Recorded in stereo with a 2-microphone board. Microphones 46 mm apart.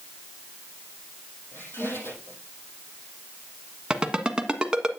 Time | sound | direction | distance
1.5 | a squeak | 60° left (ahead or behind) | 7 m
3.9 | a ringtone | 20° right (ahead or behind) | 1.3 m